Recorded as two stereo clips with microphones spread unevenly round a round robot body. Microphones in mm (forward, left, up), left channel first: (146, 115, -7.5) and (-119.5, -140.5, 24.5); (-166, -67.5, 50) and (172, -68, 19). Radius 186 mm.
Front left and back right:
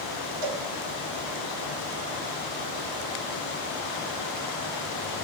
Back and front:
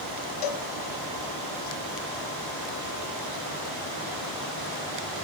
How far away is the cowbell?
About 1.4 m.